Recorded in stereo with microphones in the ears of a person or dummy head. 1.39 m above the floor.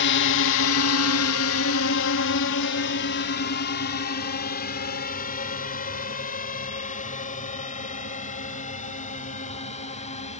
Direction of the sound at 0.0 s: 60° left (ahead or behind).